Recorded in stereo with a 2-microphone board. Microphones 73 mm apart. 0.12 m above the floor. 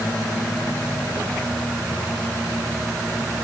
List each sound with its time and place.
Only background noise.